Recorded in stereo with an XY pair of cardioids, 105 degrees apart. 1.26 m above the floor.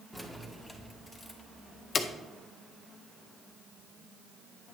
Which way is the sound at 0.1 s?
Straight ahead.